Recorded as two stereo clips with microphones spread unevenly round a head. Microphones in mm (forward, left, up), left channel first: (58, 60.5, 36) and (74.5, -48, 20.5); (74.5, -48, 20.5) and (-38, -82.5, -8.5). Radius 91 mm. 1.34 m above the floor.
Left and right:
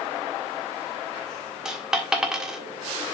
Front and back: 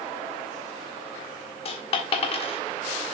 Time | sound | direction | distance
1.6 | a dropped coin | 5° left | 1.6 m